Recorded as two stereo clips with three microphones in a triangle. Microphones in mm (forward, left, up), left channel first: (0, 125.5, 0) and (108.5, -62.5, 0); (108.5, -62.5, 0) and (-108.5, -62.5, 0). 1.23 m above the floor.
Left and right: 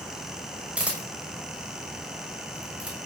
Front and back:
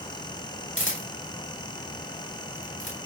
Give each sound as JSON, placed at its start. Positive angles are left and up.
{"t": 0.8, "sound": "a camera shutter", "azimuth_deg": 25, "distance_m": 6.0}